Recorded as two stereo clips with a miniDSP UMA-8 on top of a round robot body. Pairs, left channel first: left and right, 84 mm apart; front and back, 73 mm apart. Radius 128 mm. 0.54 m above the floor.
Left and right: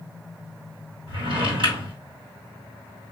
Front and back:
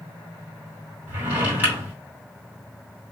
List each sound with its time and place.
1.1 s a drawer: 115° right, 2.5 m